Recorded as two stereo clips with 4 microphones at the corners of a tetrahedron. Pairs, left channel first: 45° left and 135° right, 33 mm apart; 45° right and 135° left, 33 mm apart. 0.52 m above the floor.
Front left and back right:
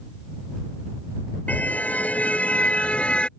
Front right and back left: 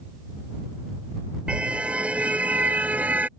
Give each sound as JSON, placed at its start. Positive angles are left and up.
{"t": 1.5, "sound": "a car horn", "azimuth_deg": 80}